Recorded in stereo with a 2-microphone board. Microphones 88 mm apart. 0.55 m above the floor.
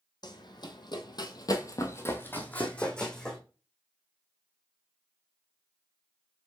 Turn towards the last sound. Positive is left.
turn(degrees=5)  # may be behind; listen again after turning